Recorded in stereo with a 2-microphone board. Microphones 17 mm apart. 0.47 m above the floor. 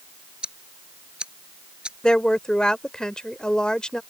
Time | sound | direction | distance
0.4 | ticking | 75° right (ahead or behind) | ?
2.0 | a woman speaking | 50° left (ahead or behind) | ?